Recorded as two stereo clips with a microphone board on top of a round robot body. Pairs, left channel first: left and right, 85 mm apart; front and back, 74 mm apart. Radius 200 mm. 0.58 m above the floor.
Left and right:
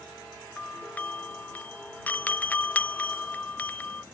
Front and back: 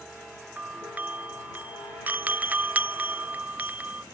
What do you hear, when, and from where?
0.6 s a doorbell: 140° left